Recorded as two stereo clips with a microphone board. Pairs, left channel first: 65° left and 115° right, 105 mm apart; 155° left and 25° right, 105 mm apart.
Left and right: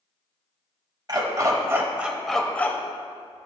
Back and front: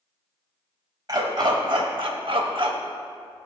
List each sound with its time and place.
1.1 s a dog barking: 70° right, 1.0 m; by 3.5 s 25° left, 0.9 m